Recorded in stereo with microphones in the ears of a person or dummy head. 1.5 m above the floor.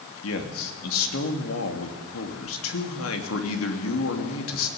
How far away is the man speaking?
About 3 m.